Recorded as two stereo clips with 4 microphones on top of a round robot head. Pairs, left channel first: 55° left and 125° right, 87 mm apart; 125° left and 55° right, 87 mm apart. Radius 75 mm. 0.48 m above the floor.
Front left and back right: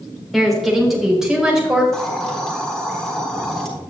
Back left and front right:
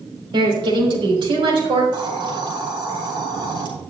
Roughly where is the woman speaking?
Ahead right.